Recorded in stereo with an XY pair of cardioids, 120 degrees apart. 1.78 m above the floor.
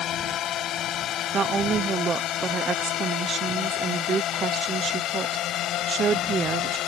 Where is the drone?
60° left; by 6.9 s 70° left.